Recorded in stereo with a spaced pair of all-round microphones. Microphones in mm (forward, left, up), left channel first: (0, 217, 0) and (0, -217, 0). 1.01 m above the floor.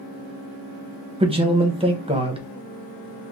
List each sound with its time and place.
1.2 s a man speaking: 15° right (ahead or behind), 0.8 m